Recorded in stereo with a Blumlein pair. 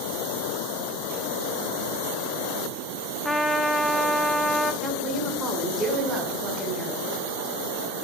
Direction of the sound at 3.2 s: 5° left.